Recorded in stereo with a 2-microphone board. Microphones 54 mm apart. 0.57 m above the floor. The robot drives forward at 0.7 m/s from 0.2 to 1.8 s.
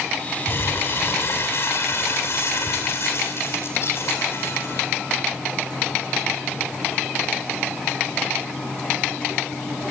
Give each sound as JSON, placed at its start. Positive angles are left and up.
{"t": 0.5, "sound": "crumpling", "side_deg": 45, "distance_m": 4.5}